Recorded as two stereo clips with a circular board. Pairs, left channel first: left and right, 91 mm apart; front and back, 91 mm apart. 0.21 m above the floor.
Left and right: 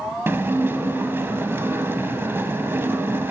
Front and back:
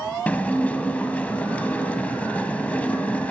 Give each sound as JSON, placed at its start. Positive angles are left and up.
{"t": 0.3, "sound": "dishes clattering", "azimuth_deg": -55, "distance_m": 0.8}